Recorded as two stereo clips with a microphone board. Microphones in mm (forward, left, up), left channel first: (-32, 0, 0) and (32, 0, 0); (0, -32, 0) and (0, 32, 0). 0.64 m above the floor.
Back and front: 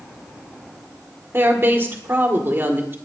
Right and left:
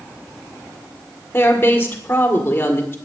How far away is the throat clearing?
I don't hear throat clearing.